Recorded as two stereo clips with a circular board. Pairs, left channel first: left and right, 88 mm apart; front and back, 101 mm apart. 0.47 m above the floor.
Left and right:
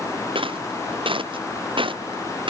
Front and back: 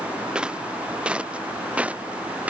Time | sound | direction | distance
0.3 | footsteps | 100° right | ?